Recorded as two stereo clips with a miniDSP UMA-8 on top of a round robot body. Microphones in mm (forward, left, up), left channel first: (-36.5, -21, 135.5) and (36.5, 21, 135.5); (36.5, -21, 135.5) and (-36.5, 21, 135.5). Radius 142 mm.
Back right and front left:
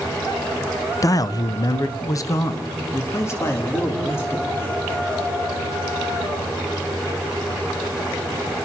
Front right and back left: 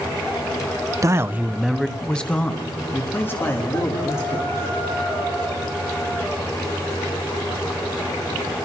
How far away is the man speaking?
About 0.9 m.